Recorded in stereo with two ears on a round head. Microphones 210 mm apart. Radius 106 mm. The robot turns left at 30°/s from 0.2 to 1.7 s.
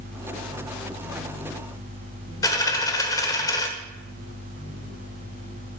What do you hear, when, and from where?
2.4 s a dropped coin: 15° left (ahead or behind), 1.1 m